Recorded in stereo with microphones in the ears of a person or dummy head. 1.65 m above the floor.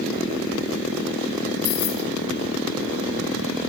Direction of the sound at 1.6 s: 75° left (ahead or behind).